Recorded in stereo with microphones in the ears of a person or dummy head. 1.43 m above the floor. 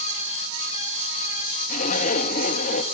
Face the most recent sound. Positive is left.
turn(degrees=40)  # may be behind; listen again after turning